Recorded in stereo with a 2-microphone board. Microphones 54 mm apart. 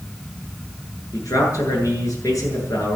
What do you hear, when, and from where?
1.1 s a man speaking: 85° left, 8.5 m